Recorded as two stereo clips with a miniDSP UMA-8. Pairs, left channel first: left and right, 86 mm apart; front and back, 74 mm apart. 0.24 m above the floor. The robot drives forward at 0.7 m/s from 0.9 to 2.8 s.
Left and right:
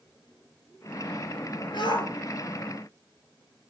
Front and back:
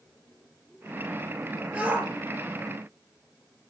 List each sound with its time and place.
1.7 s a shout: 105° left, 3.5 m